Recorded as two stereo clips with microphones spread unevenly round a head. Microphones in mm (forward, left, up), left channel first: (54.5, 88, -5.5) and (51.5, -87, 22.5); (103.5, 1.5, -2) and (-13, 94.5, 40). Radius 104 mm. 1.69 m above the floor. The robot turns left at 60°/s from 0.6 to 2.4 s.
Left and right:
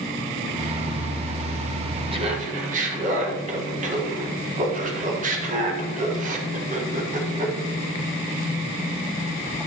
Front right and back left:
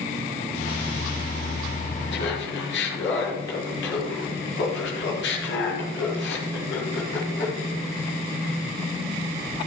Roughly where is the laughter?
Ahead right.